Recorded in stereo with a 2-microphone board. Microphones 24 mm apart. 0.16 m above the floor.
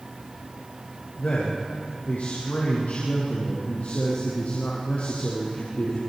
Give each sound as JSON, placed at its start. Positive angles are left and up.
{"t": 1.2, "sound": "a man speaking", "side_deg": 75, "distance_m": 6.0}